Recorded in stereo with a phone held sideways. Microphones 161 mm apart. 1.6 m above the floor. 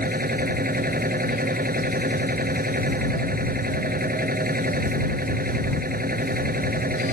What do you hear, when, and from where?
0.0 s a machine running: 65° right (ahead or behind)